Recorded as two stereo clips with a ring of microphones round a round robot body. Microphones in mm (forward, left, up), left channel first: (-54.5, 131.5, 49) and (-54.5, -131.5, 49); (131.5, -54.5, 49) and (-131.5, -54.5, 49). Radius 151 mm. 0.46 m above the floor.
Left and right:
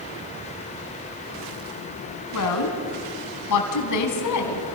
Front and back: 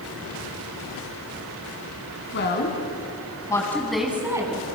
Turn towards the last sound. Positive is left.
turn(degrees=105)